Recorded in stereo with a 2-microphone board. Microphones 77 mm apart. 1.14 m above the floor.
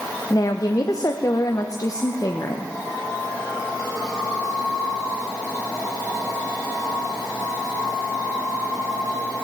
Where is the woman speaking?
50° left (ahead or behind), 0.9 m.